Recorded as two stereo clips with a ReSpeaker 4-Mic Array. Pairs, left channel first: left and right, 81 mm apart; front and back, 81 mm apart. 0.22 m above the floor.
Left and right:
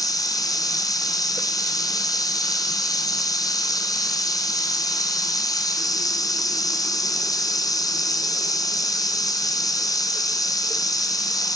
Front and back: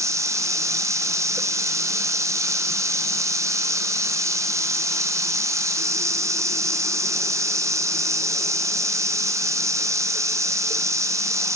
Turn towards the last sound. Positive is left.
turn(degrees=130)